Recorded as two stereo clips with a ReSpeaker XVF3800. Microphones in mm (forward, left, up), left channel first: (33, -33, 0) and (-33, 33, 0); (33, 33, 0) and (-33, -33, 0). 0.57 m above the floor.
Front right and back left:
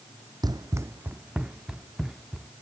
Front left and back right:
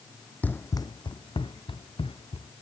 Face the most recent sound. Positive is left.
turn(degrees=50)